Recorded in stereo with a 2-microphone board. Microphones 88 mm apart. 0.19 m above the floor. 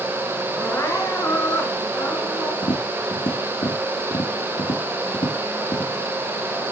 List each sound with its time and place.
0.6 s crying: 30° left (ahead or behind), 2 m
2.6 s tapping: 80° left, 3 m